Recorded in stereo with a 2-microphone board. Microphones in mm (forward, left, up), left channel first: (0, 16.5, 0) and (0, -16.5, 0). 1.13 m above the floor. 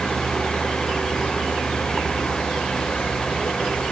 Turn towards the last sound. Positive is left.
turn(degrees=20)  # may be behind; listen again after turning